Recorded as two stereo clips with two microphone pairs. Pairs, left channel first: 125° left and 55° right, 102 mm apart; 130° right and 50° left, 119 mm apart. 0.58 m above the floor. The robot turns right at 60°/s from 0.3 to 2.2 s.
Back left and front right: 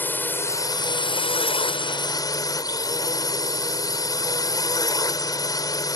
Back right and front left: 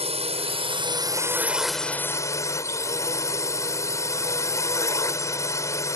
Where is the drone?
55° left; by 6.0 s 170° left.